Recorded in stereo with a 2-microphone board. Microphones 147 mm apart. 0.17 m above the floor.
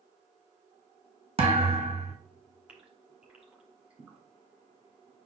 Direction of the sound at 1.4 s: 45° right (ahead or behind).